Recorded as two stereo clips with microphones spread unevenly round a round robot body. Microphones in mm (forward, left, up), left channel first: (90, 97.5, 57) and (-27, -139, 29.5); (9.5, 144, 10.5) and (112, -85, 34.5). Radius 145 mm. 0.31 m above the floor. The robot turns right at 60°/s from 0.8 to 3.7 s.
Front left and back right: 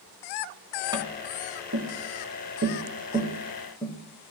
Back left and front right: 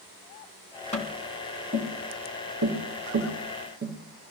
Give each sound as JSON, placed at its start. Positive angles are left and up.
{"t": 0.9, "sound": "tapping", "azimuth_deg": 170, "distance_m": 2.5}